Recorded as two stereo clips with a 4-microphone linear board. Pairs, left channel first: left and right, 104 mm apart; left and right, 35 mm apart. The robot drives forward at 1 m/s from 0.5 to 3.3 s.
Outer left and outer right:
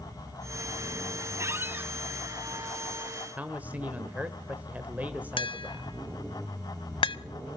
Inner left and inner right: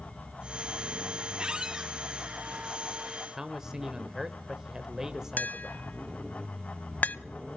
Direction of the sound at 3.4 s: 15° right (ahead or behind).